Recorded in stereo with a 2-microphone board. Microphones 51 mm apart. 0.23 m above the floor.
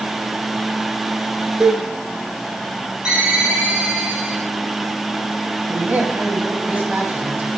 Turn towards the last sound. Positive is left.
turn(degrees=-35)  # may be behind; listen again after turning